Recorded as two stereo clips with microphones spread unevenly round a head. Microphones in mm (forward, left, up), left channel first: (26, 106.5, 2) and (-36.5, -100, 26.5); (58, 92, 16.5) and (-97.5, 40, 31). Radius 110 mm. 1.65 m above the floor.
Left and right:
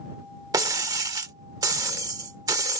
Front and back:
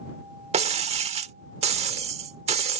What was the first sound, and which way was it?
Breaking glass, 165° right.